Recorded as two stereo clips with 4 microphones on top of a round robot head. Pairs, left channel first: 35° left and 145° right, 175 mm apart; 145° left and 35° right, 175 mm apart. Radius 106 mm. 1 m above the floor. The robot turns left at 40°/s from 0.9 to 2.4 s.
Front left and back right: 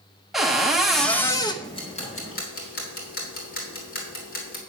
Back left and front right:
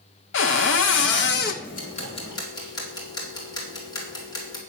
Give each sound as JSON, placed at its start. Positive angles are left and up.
{"t": 0.3, "sound": "a cupboard door", "azimuth_deg": 130, "distance_m": 1.0}
{"t": 1.6, "sound": "ticking", "azimuth_deg": 105, "distance_m": 3.0}